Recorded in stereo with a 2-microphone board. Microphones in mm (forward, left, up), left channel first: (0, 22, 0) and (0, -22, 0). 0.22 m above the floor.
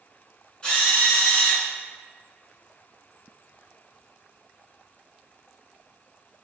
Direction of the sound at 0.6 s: 25° left (ahead or behind).